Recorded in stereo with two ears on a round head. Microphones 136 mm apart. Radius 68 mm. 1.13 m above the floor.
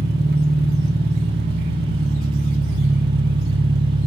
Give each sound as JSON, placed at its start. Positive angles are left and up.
{"t": 0.0, "sound": "an engine running", "side_deg": -70, "distance_m": 1.0}